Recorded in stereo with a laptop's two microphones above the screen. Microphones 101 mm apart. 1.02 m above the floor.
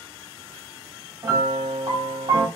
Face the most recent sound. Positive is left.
turn(degrees=-40)  # may be behind; listen again after turning